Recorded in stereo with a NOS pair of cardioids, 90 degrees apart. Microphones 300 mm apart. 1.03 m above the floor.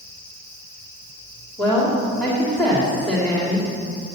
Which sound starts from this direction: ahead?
A woman speaking, at 1.6 s.